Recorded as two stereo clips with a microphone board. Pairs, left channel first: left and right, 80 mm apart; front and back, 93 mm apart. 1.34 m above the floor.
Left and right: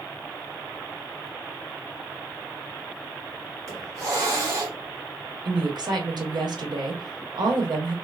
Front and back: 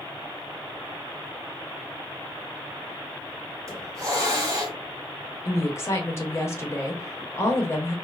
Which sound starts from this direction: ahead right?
A woman speaking, at 5.5 s.